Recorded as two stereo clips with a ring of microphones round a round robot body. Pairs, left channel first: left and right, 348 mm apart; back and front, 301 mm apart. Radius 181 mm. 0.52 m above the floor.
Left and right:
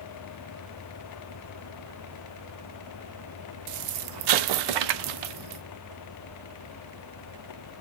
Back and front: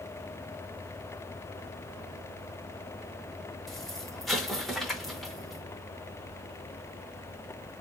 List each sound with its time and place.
3.7 s an explosion: 90° right, 0.6 m